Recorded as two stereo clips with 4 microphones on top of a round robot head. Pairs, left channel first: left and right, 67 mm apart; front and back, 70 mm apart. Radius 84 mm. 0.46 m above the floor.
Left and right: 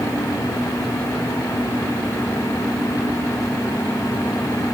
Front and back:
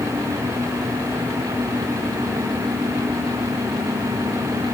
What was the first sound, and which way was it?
Only background noise.